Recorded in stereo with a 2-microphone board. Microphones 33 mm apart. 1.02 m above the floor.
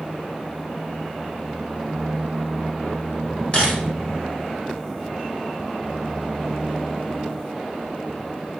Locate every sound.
3.5 s a camera shutter: 30° left (ahead or behind), 0.8 m